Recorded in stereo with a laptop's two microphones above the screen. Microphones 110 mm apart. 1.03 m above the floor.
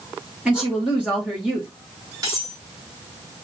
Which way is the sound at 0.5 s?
10° right (ahead or behind).